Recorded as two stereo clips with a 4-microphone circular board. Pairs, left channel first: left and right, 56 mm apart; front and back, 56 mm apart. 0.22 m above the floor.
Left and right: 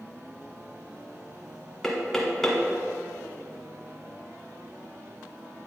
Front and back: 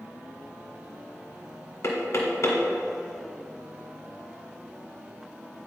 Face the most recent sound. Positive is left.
turn(degrees=10)